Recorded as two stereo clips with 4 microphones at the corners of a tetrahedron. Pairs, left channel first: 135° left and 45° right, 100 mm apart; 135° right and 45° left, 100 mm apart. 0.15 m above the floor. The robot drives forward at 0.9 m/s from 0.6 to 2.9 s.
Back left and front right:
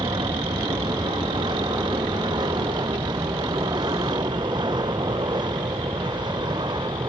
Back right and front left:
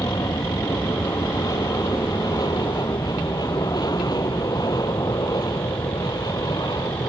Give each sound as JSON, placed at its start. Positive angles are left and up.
{"t": 0.0, "sound": "an aircraft", "azimuth_deg": -85}